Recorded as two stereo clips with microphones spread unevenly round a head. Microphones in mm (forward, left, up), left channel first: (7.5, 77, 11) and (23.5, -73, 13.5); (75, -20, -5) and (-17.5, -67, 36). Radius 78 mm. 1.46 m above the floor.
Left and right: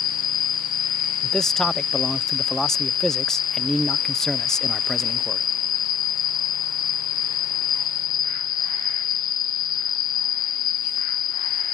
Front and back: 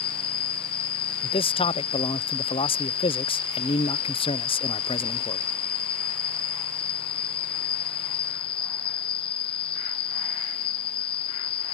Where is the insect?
65° left.